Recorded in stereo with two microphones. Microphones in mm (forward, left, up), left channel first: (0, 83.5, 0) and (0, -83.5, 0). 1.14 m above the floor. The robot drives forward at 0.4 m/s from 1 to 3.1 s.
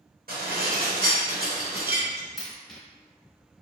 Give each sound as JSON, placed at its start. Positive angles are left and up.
{"t": 0.3, "sound": "dishes clattering", "side_deg": -70, "distance_m": 0.8}
{"t": 2.4, "sound": "a dropped coin", "side_deg": 0, "distance_m": 1.1}